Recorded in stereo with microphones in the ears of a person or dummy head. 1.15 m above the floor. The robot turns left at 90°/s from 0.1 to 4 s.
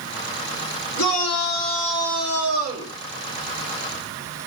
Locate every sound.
1.0 s a shout: 110° left, 4 m; by 2.9 s 70° right, 4 m